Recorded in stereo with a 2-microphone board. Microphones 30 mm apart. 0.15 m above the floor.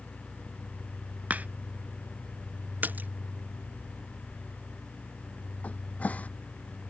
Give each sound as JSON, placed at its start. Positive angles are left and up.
{"t": 1.3, "sound": "a crack", "side_deg": -60}
{"t": 2.8, "sound": "a splash", "side_deg": -80}
{"t": 5.6, "sound": "a cupboard door", "side_deg": 55}